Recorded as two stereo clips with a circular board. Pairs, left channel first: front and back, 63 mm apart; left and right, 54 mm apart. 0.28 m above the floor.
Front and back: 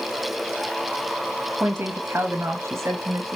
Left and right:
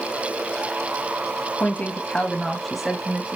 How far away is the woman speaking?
About 1.4 m.